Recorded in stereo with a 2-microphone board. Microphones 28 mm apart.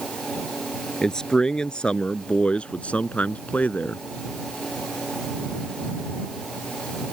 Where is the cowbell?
No cowbell in this recording.